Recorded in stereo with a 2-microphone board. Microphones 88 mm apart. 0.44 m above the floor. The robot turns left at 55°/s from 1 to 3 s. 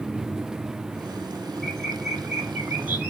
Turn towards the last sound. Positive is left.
turn(degrees=-20)  # may be behind; listen again after turning